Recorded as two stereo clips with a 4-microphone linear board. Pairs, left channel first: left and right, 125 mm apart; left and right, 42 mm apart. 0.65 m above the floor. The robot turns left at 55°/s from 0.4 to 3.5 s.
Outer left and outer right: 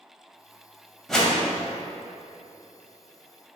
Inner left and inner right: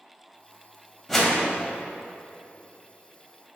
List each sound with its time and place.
1.1 s a whoosh: 5° left (ahead or behind), 0.6 m; by 1.4 s 15° left (ahead or behind), 0.6 m